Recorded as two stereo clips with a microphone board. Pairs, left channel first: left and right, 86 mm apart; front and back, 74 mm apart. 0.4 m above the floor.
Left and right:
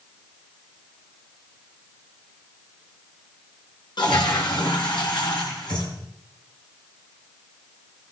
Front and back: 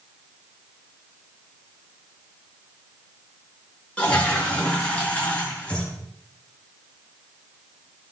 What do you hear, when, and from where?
4.0 s a toilet flushing: 75° left, 3.5 m